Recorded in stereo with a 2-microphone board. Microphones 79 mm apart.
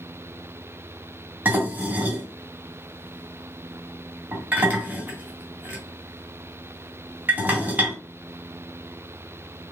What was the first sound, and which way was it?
Dishes clattering, 20° right (ahead or behind).